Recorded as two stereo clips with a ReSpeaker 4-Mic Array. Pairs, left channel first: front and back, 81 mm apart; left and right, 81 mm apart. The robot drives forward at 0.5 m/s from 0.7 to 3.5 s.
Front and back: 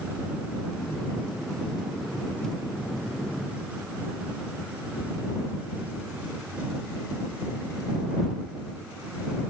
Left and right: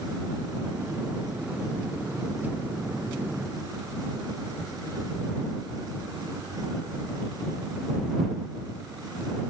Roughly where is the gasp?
I don't hear a gasp.